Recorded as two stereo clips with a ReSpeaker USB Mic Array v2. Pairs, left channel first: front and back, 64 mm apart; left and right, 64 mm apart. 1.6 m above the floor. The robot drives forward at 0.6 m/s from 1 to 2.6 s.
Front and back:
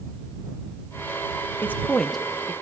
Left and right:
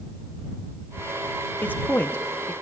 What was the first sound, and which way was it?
A man speaking, 40° left.